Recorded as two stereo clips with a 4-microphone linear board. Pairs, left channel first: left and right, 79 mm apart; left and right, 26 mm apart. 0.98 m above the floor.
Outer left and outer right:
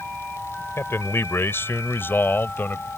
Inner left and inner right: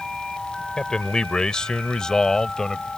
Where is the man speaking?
30° left (ahead or behind); by 2.9 s 25° left (ahead or behind).